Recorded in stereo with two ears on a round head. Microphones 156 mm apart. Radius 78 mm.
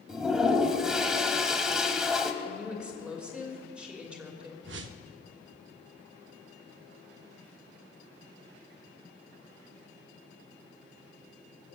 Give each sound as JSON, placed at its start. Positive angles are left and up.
{"t": 0.1, "sound": "a toilet flushing", "side_deg": -5, "distance_m": 0.9}
{"t": 2.4, "sound": "a woman speaking", "side_deg": -5, "distance_m": 2.5}
{"t": 4.6, "sound": "a whoosh", "side_deg": -75, "distance_m": 0.7}